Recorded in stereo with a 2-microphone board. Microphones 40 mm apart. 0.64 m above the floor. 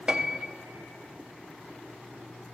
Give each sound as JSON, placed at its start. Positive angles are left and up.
{"t": 0.1, "sound": "a piano", "side_deg": -25, "distance_m": 0.8}